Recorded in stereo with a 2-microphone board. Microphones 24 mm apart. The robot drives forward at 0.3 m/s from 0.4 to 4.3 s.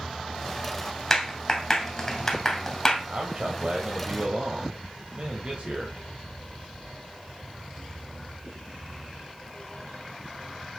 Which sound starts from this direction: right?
A man speaking, at 3.1 s.